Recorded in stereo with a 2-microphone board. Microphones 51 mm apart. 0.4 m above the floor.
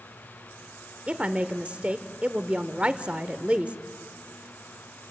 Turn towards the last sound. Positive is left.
turn(degrees=-25)  # may be behind; listen again after turning